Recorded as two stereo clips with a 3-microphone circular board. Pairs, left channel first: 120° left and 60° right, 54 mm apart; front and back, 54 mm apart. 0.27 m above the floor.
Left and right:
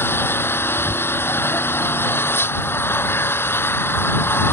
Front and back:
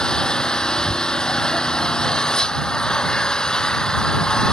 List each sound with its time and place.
0.0 s an engine running: 80° left